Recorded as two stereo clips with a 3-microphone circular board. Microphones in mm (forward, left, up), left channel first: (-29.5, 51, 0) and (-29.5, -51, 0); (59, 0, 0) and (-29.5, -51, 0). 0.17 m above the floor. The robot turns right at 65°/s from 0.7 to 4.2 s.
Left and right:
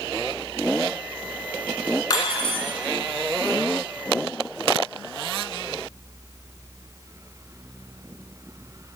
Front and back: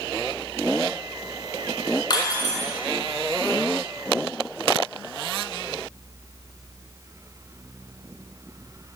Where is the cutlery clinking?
45° left, 1.2 m; by 2.7 s 85° left, 1.2 m.